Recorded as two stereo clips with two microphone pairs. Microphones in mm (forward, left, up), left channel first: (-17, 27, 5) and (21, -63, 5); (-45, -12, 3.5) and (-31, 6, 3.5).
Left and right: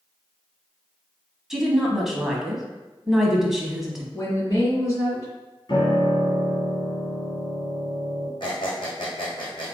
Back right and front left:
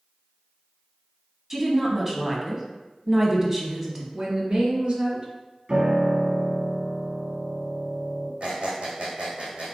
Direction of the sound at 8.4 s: 80° left.